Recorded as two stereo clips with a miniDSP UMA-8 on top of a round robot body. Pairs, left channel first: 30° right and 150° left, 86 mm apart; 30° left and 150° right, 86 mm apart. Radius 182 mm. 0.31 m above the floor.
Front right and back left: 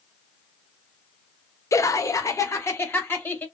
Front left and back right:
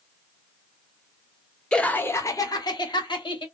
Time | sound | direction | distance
1.7 | laughter | 45° right | 1.0 m